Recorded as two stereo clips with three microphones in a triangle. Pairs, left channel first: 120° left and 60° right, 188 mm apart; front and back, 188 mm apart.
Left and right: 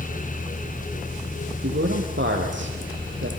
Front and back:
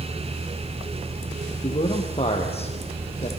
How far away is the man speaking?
About 5 m.